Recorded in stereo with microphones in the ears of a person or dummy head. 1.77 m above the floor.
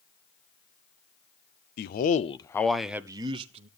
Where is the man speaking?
55° left (ahead or behind), 0.9 m; by 3.7 s 35° right (ahead or behind), 1.1 m.